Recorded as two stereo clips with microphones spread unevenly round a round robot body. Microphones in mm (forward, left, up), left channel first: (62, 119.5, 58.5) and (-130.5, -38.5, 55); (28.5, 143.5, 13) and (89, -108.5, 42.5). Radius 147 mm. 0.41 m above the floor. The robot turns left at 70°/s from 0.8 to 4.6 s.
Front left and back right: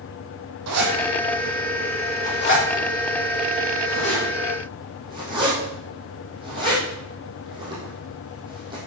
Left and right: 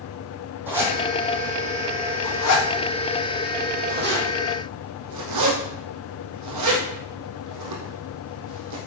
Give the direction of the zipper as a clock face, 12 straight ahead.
5 o'clock.